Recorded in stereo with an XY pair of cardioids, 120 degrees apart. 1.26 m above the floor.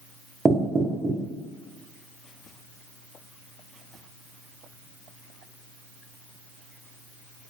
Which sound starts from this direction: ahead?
Knocking, at 0.5 s.